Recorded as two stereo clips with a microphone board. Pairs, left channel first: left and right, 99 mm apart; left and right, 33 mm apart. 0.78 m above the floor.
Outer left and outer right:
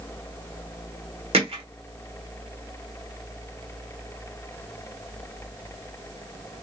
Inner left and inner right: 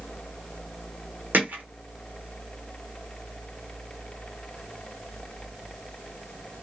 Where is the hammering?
75° right (ahead or behind), 1.2 m.